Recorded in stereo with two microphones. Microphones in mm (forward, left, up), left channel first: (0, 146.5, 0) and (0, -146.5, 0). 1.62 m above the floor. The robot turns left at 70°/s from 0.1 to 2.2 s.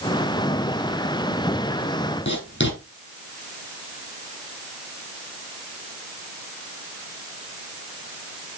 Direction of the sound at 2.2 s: 40° left (ahead or behind).